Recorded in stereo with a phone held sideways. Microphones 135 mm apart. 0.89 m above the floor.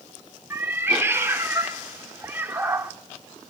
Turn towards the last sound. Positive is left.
turn(degrees=-15)  # may be behind; listen again after turning